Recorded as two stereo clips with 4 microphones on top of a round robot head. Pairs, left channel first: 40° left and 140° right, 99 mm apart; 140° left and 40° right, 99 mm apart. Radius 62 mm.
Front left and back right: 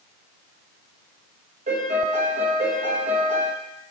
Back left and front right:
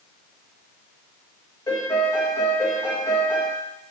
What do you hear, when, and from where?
1.7 s a piano: 155° right, 1.4 m